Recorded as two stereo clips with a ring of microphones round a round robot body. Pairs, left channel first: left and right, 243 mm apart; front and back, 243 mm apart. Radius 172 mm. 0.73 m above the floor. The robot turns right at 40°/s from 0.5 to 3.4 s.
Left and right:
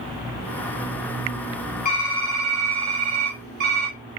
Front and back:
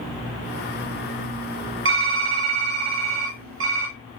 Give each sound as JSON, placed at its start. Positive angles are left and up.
{"t": 1.9, "sound": "typing on a keyboard", "azimuth_deg": 155, "distance_m": 0.7}